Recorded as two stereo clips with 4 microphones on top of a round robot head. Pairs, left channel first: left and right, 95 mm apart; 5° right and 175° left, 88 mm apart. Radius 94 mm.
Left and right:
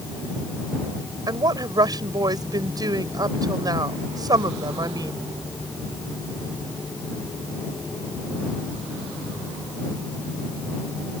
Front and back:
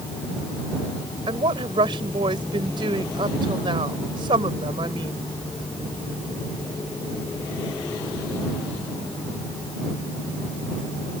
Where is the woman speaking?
140° right.